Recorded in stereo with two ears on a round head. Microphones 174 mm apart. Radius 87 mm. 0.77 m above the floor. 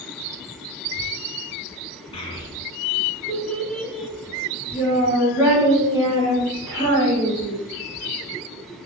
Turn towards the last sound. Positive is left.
turn(degrees=-25)  # may be behind; listen again after turning